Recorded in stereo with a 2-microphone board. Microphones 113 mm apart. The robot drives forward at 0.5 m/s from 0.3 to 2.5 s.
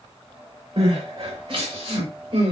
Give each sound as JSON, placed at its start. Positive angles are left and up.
{"t": 0.8, "sound": "crying", "side_deg": -55, "distance_m": 6.0}